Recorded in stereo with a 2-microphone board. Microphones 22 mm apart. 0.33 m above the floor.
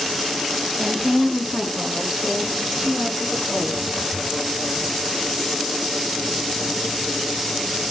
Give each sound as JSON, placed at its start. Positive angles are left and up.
{"t": 0.8, "sound": "a woman speaking", "side_deg": -20, "distance_m": 0.9}